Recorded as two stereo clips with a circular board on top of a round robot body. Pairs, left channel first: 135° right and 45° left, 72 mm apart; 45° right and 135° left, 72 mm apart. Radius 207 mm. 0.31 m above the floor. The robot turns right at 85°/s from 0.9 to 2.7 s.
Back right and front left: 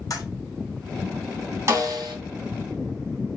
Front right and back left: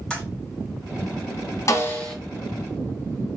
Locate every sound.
0.1 s a toilet flushing: 125° right, 2.5 m
1.7 s a snare drum: 5° right, 2.5 m; by 2.1 s 35° left, 2.5 m